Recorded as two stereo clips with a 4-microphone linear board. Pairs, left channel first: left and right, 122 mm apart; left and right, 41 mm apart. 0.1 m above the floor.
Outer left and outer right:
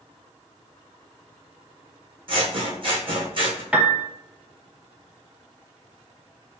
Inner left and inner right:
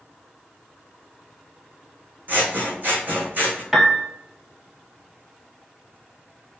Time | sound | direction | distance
2.3 | scissors | 50° right (ahead or behind) | 1.0 m
3.7 | a piano | 10° right (ahead or behind) | 0.6 m